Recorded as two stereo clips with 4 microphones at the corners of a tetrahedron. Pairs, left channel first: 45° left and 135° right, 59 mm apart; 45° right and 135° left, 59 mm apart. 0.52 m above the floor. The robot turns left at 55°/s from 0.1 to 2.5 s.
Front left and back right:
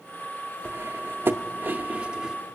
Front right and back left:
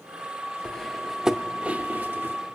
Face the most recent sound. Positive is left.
turn(degrees=145)